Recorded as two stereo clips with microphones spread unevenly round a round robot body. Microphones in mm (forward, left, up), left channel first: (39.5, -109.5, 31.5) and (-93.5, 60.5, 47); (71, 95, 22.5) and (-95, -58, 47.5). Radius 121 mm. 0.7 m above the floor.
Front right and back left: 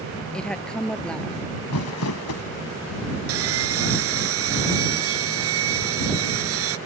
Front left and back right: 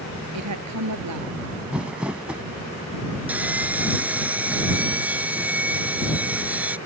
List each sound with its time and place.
0.3 s a woman speaking: 140° right
1.7 s crumpling: 55° right
3.3 s sawing: 140° left